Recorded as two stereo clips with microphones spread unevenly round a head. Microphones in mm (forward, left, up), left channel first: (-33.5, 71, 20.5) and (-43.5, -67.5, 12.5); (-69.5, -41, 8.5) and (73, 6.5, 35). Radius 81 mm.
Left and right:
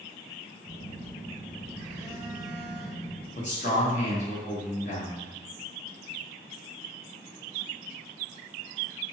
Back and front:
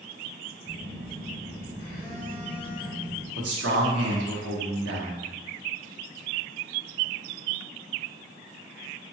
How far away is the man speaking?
About 0.8 m.